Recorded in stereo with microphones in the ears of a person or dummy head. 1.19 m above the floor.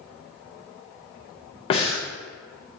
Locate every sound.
1.7 s breathing: 35° left (ahead or behind), 0.5 m